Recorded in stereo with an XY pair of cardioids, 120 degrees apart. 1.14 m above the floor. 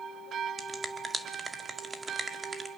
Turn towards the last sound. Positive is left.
turn(degrees=-20)